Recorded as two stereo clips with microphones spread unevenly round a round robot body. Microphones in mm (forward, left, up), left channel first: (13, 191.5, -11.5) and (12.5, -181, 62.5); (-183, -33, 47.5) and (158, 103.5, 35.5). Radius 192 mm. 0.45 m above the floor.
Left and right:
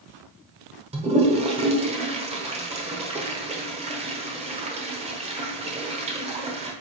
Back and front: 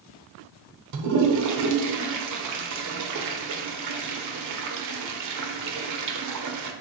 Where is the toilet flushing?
10° right, 1.1 m.